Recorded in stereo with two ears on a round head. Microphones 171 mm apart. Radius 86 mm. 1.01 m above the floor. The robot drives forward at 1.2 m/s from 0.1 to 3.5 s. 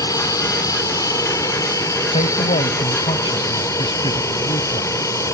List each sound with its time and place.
0.0 s an aircraft: 20° left (ahead or behind); by 5.3 s 15° left (ahead or behind)
2.1 s a man speaking: 30° left (ahead or behind); by 4.9 s 25° left (ahead or behind)